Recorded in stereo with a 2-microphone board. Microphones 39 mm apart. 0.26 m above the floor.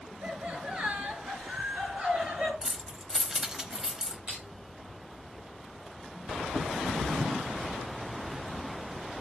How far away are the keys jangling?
About 0.8 m.